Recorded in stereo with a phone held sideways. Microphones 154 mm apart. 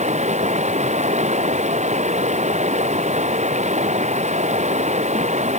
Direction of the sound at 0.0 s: 45° right (ahead or behind).